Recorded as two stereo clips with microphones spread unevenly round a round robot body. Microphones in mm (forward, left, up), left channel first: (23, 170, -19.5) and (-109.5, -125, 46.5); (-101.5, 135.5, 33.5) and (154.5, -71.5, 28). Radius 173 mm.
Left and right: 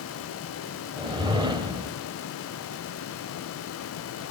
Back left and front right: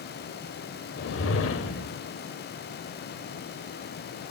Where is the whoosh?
160° left, 1.4 m.